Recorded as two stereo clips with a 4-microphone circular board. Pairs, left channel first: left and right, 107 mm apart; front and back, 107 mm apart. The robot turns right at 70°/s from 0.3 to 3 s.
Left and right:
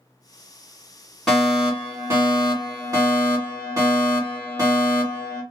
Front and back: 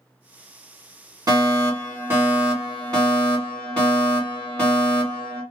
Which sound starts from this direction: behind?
A fire alarm, at 1.3 s.